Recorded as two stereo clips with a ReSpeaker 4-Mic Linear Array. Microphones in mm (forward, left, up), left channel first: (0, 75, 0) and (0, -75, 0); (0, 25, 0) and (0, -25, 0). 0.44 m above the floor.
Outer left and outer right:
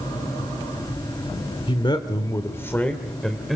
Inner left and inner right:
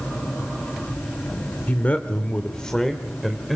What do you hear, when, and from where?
1.7 s a man speaking: 35° left (ahead or behind), 1.3 m; by 3.6 s centre (ahead or behind), 1.7 m